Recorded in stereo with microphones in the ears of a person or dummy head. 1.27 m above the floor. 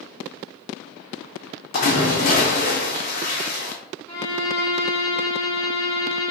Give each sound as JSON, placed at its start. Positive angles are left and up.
{"t": 1.7, "sound": "a splash", "side_deg": 50, "distance_m": 0.8}
{"t": 4.1, "sound": "a violin", "side_deg": 10, "distance_m": 0.7}